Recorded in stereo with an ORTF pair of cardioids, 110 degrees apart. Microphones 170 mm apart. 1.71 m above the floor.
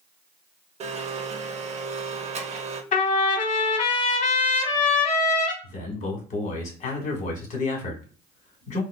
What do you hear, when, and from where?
0.8 s a blender: 45° right, 0.6 m
2.9 s a trumpet: 50° left, 0.9 m
5.6 s a man speaking: 50° left, 1.5 m